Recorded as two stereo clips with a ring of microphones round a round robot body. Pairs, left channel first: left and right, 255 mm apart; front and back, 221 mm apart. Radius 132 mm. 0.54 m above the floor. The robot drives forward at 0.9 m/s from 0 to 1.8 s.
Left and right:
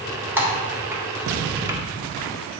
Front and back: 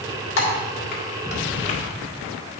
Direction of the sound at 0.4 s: 5° right.